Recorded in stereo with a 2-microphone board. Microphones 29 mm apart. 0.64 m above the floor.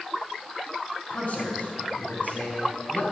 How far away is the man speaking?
About 5.5 m.